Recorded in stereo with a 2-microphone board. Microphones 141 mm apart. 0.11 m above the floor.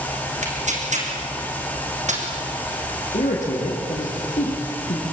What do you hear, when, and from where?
0.4 s tearing paper: 60° right (ahead or behind), 4 m
3.1 s a man speaking: 60° left (ahead or behind), 6 m